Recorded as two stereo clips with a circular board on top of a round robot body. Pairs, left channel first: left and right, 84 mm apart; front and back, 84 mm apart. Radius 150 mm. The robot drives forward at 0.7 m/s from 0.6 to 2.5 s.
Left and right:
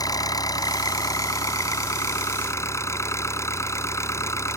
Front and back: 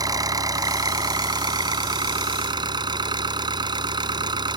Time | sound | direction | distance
0.0 | an engine running | 135° left | ?